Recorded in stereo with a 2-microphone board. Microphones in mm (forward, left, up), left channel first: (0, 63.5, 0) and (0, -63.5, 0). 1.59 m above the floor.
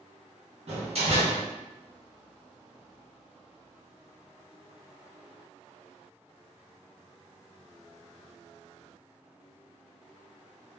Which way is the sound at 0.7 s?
55° right (ahead or behind).